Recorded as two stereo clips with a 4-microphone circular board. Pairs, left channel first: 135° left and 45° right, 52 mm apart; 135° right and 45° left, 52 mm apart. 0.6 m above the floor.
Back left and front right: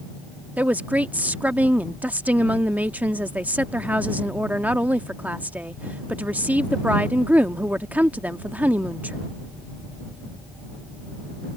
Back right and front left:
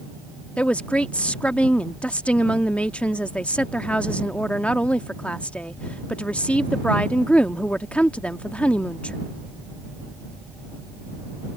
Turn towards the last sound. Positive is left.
turn(degrees=-85)